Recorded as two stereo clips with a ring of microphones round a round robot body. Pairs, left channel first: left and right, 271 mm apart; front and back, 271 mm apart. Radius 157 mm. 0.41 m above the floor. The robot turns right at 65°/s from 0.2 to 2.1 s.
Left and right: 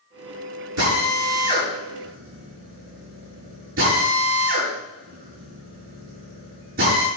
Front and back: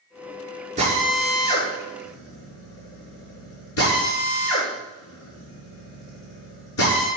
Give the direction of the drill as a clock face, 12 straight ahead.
4 o'clock.